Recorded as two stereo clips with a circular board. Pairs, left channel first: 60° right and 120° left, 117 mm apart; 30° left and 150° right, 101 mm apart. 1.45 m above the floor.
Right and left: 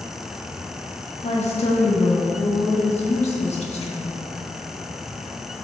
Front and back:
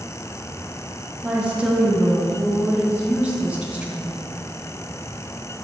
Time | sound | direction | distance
1.2 | a woman speaking | 75° right | 1.5 m